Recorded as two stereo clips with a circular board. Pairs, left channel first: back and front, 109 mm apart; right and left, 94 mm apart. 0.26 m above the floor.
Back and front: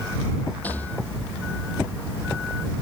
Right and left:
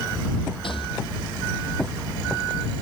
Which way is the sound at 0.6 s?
105° right.